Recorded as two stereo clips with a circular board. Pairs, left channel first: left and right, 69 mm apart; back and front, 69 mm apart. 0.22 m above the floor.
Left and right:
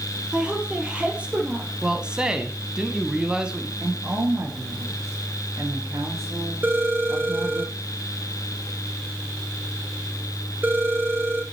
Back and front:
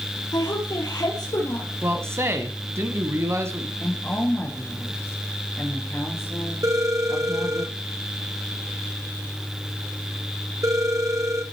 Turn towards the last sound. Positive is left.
turn(degrees=-30)